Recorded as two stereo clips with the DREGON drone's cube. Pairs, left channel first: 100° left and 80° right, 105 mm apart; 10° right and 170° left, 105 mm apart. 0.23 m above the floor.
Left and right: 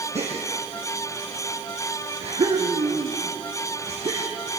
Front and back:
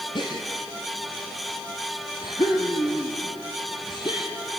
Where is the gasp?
60° right, 3.5 m.